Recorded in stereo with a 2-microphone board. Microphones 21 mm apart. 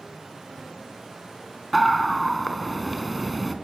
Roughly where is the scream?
Centre.